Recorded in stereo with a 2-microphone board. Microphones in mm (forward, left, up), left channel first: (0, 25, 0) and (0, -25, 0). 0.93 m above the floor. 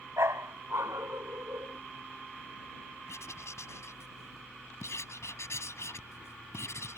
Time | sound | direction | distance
0.2 | a dog barking | 70° right (ahead or behind) | ?
3.1 | writing | 70° left (ahead or behind) | ?